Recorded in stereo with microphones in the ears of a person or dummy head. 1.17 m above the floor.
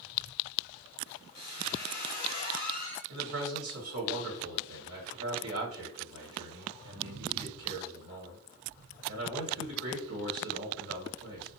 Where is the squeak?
60° left (ahead or behind), 1.0 m.